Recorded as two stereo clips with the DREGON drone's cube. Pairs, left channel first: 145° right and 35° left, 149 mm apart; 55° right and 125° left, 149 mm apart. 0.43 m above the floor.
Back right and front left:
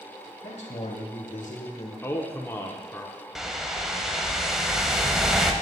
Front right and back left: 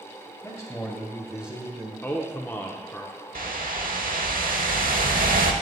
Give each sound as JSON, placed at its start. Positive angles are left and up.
{"t": 0.4, "sound": "a man speaking", "azimuth_deg": -120, "distance_m": 1.9}
{"t": 2.0, "sound": "a man speaking", "azimuth_deg": -105, "distance_m": 0.8}
{"t": 3.4, "sound": "a whoosh", "azimuth_deg": 120, "distance_m": 0.7}